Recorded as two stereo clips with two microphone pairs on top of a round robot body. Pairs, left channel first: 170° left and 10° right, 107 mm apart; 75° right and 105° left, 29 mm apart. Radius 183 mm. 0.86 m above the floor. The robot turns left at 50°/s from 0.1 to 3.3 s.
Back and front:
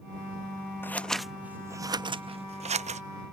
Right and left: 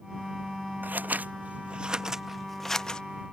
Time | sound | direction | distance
0.8 | scissors | 100° left | ?